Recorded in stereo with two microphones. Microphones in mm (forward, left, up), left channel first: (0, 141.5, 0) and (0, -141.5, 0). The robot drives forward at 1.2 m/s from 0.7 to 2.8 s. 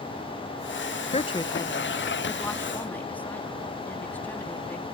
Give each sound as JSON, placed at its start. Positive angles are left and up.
{"t": 1.1, "sound": "a woman speaking", "side_deg": 25}